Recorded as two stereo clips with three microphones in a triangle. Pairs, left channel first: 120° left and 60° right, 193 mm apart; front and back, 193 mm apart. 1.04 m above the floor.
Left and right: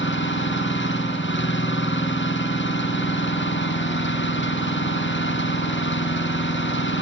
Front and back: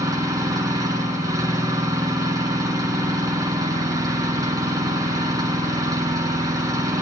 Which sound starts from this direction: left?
An engine running, at 0.0 s.